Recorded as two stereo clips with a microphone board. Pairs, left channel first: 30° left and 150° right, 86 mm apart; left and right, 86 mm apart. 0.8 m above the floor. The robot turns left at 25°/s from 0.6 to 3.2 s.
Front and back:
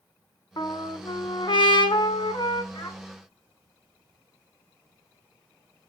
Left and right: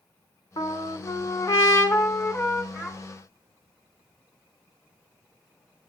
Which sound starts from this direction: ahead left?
A trumpet, at 0.6 s.